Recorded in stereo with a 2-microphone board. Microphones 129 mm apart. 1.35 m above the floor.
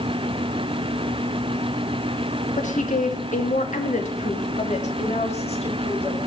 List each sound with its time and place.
2.6 s a woman speaking: 75° left (ahead or behind), 2.5 m; by 6.2 s 50° left (ahead or behind), 5 m